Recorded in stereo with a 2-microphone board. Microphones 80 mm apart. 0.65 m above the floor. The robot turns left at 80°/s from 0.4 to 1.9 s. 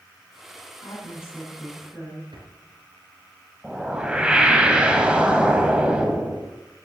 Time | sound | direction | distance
0.8 | a woman speaking | 60° left | 6.5 m
2.3 | a drawer | 90° right | 4 m
3.6 | a whoosh | 15° right (ahead or behind) | 2 m